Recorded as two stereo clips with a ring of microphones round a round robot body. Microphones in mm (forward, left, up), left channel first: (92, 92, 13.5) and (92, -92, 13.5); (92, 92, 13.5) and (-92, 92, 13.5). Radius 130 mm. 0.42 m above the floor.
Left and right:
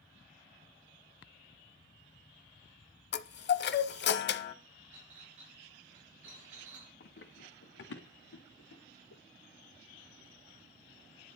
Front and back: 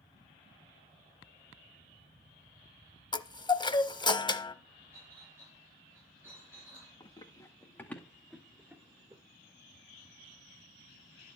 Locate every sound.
3.1 s a chime: 65° left, 0.9 m
4.9 s a clink: 100° right, 5 m
7.0 s running footsteps: 60° left, 2 m; by 9.2 s 110° left, 2.5 m